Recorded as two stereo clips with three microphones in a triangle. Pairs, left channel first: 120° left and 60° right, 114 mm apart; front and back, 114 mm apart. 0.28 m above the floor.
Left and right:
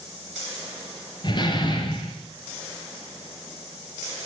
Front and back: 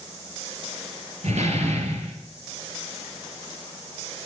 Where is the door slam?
165° left, 3.5 m.